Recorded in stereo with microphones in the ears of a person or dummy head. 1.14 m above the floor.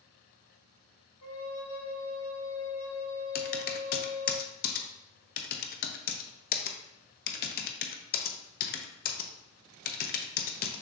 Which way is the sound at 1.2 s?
70° left (ahead or behind).